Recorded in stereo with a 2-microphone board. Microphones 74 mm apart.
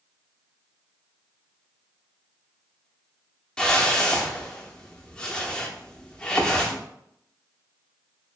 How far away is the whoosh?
About 0.6 m.